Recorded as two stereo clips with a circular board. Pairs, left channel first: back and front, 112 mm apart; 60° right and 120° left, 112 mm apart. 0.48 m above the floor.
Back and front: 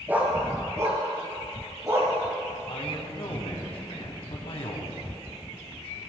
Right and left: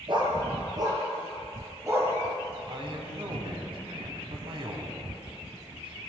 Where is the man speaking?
155° left, 3.5 m.